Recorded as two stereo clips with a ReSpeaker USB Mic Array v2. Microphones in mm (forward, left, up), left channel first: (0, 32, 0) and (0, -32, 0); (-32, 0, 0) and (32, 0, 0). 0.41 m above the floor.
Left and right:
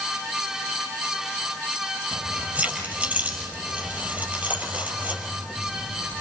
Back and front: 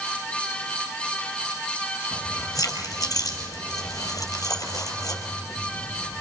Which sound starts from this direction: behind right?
Keys jangling, at 2.1 s.